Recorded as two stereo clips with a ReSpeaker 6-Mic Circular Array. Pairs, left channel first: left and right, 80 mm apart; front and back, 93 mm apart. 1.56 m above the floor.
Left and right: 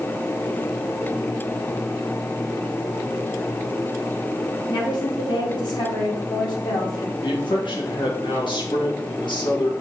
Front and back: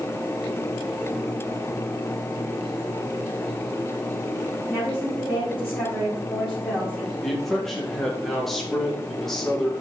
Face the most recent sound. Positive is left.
turn(degrees=85)